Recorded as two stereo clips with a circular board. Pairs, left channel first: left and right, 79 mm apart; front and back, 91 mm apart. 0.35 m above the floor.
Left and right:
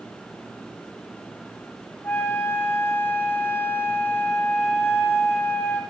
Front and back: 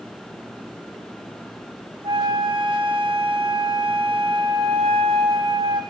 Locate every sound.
2.0 s a flute: 155° left, 1.4 m